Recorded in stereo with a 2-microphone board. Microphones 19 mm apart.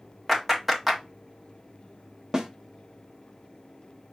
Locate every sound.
0.3 s a clap: 5° right (ahead or behind), 1.3 m
2.3 s a snare drum: 25° right (ahead or behind), 0.8 m